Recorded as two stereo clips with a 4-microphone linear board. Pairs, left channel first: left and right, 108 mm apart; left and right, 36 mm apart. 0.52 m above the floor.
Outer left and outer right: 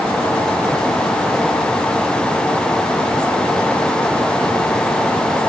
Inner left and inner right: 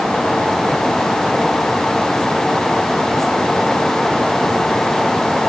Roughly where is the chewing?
I don't hear chewing.